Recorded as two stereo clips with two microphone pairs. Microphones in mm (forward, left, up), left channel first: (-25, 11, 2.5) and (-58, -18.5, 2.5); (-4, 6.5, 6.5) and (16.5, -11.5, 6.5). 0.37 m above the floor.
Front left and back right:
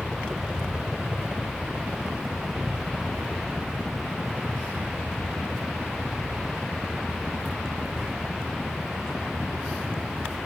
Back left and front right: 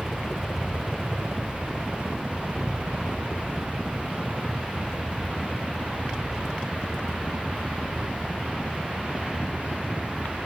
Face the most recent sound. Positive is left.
turn(degrees=-90)